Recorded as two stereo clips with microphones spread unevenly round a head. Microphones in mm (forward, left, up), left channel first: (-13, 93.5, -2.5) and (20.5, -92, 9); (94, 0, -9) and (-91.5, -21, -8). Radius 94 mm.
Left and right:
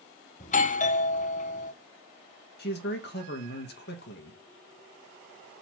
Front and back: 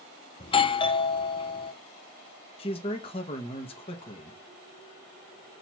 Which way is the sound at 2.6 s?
70° left.